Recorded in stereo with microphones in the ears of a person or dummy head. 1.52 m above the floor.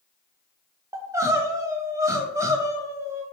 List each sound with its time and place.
0.9 s crying: 20° right (ahead or behind), 0.6 m